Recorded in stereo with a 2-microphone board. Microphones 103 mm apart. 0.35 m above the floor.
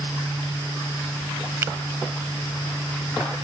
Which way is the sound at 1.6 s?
25° right (ahead or behind).